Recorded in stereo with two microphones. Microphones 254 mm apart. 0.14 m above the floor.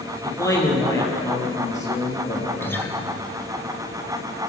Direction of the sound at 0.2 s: 10° left (ahead or behind).